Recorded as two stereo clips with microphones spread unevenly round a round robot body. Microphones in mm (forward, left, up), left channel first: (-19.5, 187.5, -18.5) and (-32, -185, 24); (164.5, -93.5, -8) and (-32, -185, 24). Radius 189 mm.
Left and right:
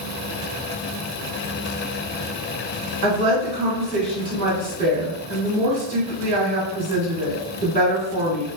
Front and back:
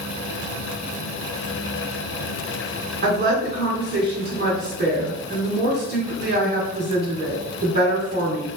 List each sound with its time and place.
3.0 s a woman speaking: 140° right, 1.5 m